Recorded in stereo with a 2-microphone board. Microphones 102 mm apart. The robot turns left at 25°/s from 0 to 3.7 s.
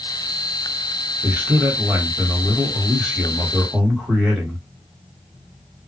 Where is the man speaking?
20° right (ahead or behind), 1.3 m; by 4.6 s 5° right (ahead or behind), 1.3 m.